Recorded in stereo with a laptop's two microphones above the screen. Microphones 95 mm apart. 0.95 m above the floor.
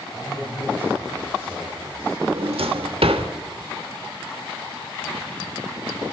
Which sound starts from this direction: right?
A drawer, at 2.2 s.